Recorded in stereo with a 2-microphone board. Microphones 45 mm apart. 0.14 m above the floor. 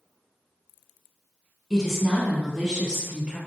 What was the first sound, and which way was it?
A woman speaking, centre (ahead or behind).